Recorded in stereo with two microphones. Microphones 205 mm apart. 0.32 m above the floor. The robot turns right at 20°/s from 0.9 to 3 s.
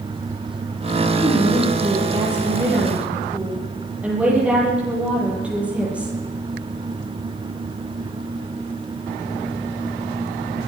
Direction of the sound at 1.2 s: 40° right.